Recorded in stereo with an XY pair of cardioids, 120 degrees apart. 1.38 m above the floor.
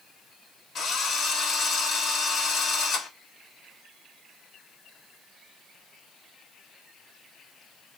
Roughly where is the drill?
Ahead left.